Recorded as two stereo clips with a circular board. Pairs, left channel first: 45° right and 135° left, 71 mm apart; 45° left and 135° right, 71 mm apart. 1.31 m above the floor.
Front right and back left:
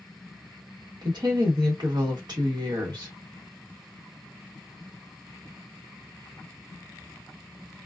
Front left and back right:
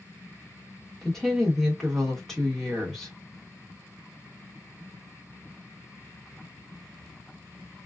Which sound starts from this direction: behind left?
A woman speaking, at 1.0 s.